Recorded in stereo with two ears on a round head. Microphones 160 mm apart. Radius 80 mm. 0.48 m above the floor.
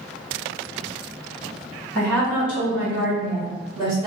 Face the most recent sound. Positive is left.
turn(degrees=-30)  # may be behind; listen again after turning